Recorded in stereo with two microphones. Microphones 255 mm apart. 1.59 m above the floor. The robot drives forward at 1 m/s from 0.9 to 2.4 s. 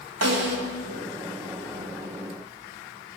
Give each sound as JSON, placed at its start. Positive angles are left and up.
{"t": 0.2, "sound": "a snare drum", "side_deg": -75, "distance_m": 2.5}